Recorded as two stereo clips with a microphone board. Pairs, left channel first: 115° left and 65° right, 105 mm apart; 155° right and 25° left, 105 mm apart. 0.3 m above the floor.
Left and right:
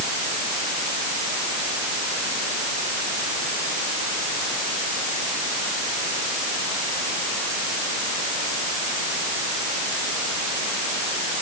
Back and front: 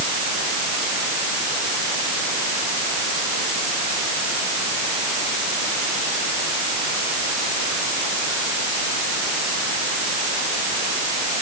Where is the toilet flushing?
I don't hear a toilet flushing.